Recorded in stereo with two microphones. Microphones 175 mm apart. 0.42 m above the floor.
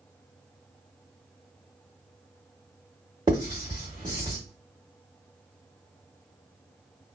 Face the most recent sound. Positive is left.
turn(degrees=-25)  # may be behind; listen again after turning